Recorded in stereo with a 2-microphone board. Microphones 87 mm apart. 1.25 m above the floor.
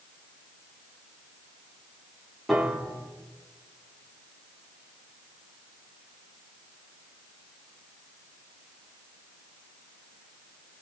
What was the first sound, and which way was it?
A piano, centre (ahead or behind).